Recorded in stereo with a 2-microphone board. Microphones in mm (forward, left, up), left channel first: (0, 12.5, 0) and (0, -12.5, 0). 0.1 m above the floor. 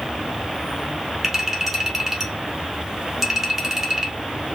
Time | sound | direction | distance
0.0 | an insect | 30° right (ahead or behind) | 1.3 m
1.2 | a clink | 15° right (ahead or behind) | 1.8 m